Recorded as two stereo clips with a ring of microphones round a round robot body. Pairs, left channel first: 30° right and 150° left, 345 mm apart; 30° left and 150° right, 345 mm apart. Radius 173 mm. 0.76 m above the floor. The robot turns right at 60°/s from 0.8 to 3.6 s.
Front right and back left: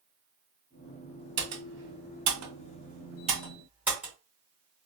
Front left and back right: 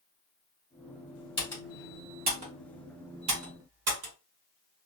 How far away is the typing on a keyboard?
About 1.5 m.